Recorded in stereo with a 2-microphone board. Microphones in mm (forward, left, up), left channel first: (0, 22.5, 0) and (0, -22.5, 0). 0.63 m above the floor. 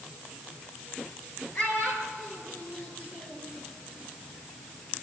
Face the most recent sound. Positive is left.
turn(degrees=30)  # may be behind; listen again after turning